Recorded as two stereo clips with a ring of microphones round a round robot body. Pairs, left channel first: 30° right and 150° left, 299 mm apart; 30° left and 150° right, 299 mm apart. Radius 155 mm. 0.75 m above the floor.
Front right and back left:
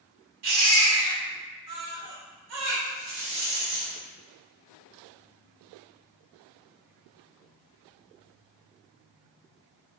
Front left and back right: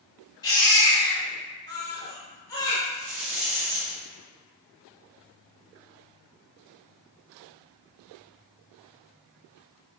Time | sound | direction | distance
0.4 | a baby crying | 110° left | 0.9 m
2.9 | a rattle | 170° right | 0.9 m